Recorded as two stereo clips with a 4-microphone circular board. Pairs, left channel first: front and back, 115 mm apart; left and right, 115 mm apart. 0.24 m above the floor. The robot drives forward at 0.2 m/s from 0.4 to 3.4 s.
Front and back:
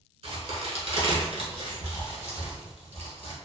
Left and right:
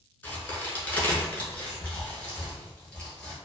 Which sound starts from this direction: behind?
A crack, at 0.2 s.